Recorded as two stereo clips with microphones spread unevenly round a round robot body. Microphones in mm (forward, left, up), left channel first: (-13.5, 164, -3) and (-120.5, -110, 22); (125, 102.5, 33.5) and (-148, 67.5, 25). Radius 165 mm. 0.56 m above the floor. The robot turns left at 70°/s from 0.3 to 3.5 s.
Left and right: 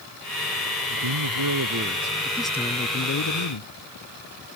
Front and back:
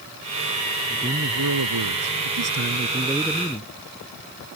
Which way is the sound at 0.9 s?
95° right.